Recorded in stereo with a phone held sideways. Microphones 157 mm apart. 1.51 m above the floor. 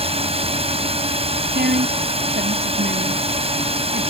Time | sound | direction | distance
0.0 | a drone | 40° right (ahead or behind) | ?
1.6 | a woman speaking | 90° right | ?